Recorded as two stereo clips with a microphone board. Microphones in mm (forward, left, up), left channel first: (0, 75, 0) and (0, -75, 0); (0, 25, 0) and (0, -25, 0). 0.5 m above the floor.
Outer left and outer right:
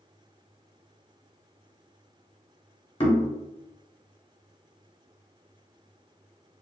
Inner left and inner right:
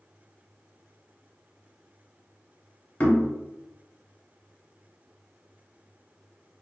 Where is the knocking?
35° left (ahead or behind), 0.8 m.